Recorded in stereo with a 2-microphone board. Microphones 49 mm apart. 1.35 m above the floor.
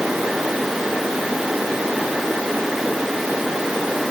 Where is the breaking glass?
I don't hear breaking glass.